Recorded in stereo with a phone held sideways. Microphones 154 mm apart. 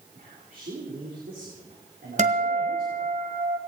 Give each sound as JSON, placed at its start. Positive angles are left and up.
{"t": 0.1, "sound": "a man speaking", "side_deg": -70, "distance_m": 3.5}
{"t": 2.2, "sound": "a guitar", "side_deg": -50, "distance_m": 2.0}